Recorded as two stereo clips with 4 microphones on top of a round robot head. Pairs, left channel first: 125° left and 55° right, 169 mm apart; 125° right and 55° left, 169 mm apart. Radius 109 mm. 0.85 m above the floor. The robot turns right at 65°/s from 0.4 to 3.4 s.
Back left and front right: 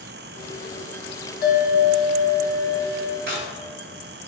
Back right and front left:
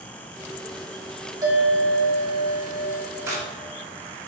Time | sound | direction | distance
1.4 | a bell | 120° left | 1.4 m
3.3 | a crack | 20° right | 1.7 m